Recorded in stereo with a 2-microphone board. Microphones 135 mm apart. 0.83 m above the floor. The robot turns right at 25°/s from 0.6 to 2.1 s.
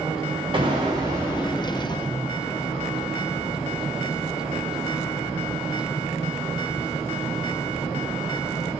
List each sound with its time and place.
0.5 s an explosion: 35° right, 0.7 m; by 2.4 s straight ahead, 0.7 m